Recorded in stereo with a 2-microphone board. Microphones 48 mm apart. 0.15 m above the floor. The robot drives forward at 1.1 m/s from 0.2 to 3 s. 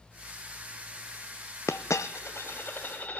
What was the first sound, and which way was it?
A dropped coin, 70° left (ahead or behind).